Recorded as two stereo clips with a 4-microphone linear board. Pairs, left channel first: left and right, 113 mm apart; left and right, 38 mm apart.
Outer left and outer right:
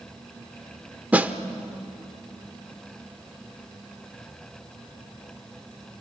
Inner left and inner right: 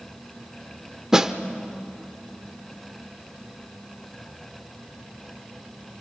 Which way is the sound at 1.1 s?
15° right (ahead or behind).